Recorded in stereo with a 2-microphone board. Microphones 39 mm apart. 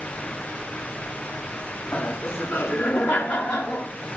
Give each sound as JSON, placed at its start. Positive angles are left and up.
{"t": 1.9, "sound": "laughter", "side_deg": 70, "distance_m": 5.5}